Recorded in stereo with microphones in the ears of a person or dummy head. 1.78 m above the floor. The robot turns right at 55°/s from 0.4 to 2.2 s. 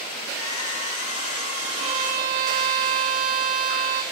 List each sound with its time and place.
1.8 s a violin: 30° right (ahead or behind), 1.0 m; by 4.0 s 50° right (ahead or behind), 1.0 m